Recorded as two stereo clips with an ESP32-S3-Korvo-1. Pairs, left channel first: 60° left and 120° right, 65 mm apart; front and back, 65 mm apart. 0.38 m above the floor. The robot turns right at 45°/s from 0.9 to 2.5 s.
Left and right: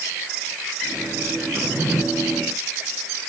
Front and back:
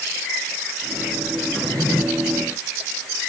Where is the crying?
No crying in this recording.